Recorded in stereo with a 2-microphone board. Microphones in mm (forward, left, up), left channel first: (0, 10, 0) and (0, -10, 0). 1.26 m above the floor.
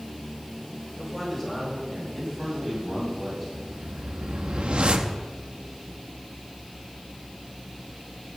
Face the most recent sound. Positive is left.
turn(degrees=-70)  # may be behind; listen again after turning